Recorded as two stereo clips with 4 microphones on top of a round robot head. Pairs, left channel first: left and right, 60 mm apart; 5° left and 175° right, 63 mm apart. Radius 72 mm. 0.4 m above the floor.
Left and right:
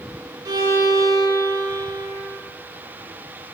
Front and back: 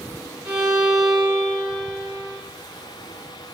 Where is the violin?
100° right, 1.5 m.